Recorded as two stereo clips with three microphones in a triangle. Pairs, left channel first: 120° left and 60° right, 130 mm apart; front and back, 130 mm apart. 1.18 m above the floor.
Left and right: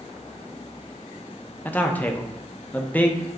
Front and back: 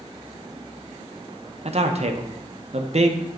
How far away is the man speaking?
About 0.5 m.